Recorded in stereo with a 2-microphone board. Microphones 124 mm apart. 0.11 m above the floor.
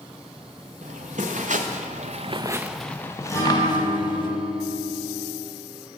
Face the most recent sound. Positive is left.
turn(degrees=25)  # may be behind; listen again after turning